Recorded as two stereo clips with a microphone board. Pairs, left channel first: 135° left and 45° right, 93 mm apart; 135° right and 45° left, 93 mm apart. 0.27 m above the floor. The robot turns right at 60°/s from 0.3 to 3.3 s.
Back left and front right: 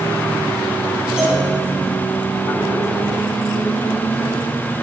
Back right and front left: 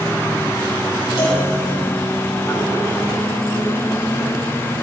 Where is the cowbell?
125° right, 8 m; by 1.4 s 110° right, 8 m.